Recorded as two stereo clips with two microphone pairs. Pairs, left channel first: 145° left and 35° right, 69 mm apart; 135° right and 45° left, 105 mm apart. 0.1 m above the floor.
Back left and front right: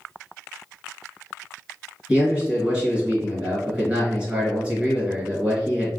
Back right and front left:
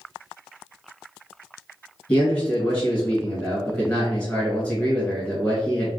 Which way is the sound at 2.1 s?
85° right.